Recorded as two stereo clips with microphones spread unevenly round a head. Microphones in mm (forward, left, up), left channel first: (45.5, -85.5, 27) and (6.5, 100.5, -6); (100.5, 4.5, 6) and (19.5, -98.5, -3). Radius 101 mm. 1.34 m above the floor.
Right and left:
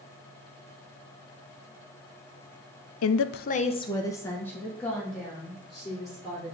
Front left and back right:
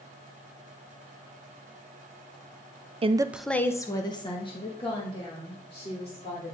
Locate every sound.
3.0 s a woman speaking: 85° right, 0.6 m; by 6.5 s 15° left, 4.5 m